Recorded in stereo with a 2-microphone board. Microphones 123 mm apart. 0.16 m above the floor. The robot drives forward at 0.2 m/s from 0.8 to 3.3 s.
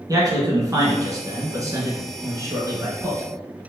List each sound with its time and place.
0.1 s a man speaking: 30° right (ahead or behind), 1.4 m; by 3.2 s 25° right (ahead or behind), 1.7 m